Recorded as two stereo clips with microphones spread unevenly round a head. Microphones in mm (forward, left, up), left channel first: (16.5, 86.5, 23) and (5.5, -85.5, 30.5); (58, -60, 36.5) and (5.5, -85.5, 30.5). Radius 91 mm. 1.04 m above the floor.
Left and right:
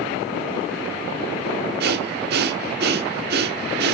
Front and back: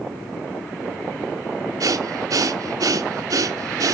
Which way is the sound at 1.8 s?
130° right.